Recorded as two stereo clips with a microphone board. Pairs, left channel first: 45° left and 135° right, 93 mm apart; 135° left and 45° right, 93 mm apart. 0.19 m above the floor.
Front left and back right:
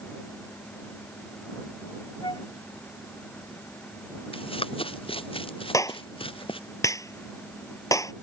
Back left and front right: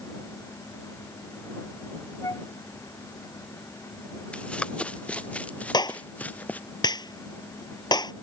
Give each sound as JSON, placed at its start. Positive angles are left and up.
{"t": 2.2, "sound": "a flute", "azimuth_deg": 80}
{"t": 4.3, "sound": "running footsteps", "azimuth_deg": 55}
{"t": 5.7, "sound": "a clap", "azimuth_deg": 95}